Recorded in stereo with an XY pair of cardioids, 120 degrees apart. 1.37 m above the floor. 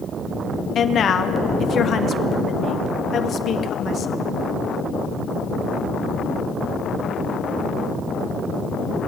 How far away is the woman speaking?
About 0.7 m.